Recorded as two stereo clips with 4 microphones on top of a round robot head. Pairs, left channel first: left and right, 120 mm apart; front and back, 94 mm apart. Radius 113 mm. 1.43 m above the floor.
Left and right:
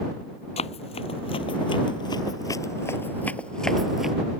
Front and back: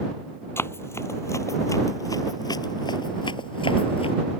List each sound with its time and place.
0.6 s running footsteps: 60° left; by 4.2 s 5° right